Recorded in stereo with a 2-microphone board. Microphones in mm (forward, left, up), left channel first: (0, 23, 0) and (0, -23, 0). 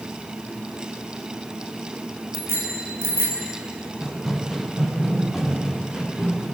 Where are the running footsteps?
Centre (ahead or behind), 3.5 m; by 6.5 s 10° right (ahead or behind), 6.5 m.